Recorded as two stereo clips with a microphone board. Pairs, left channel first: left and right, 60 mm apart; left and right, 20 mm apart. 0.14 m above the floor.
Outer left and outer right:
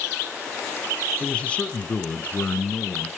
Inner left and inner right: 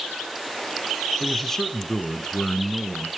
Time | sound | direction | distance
1.2 | a man speaking | 20° left (ahead or behind) | 1.9 m